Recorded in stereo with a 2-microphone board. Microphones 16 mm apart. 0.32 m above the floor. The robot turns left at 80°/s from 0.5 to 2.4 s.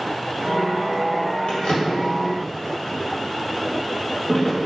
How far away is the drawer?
About 0.8 m.